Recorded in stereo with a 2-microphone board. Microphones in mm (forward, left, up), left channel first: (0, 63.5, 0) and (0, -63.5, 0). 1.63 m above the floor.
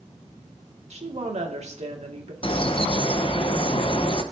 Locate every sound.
0.9 s a woman speaking: 60° right (ahead or behind), 2.0 m
2.4 s a bird: 45° left (ahead or behind), 0.9 m